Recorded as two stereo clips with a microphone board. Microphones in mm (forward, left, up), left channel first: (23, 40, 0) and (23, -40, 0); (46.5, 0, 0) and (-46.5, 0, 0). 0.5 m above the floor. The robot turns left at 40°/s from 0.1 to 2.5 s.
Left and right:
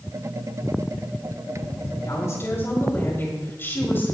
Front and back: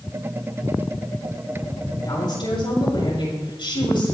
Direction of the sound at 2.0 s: 50° left.